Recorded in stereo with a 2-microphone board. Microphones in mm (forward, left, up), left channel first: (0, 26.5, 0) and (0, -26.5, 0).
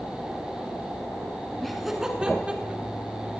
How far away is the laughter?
About 1.6 m.